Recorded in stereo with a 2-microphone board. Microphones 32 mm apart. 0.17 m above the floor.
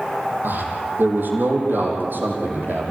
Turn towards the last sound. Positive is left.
turn(degrees=-80)